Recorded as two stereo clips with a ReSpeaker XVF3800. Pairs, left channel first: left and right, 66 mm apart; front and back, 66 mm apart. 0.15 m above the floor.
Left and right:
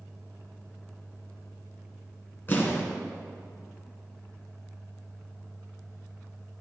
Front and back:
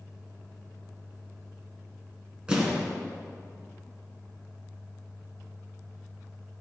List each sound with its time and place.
2.5 s an explosion: 115° left, 2 m